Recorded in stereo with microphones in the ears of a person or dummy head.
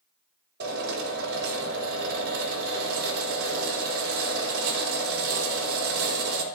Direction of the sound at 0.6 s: 60° right (ahead or behind).